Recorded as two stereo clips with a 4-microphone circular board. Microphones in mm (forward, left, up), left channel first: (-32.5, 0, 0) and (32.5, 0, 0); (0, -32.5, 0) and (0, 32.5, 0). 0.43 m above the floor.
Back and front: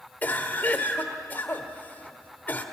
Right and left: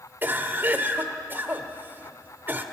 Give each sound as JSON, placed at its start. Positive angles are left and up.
{"t": 0.2, "sound": "a cough", "azimuth_deg": 130, "distance_m": 1.6}